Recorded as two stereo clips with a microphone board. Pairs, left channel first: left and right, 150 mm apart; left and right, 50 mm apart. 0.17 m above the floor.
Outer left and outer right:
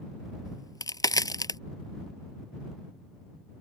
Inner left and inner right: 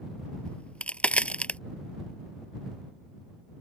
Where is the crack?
25° left (ahead or behind).